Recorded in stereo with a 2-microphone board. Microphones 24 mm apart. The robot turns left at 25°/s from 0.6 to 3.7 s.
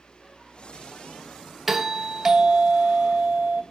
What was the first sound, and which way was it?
A doorbell, 20° right.